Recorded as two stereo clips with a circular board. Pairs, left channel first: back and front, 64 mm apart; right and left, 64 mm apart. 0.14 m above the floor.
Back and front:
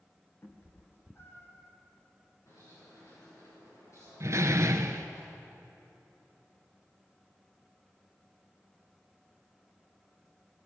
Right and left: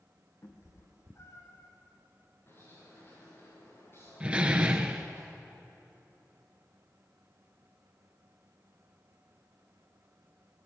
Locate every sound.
0.4 s a cat meowing: 130° right, 3.5 m; by 1.7 s 125° right, 1.8 m
2.5 s a bird: 145° right, 9.5 m
4.2 s a door slam: 25° left, 1.3 m